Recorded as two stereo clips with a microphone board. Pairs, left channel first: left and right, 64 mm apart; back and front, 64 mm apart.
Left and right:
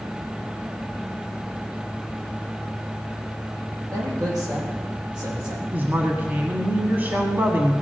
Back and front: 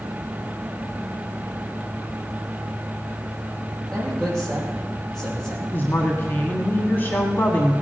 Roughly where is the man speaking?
Right.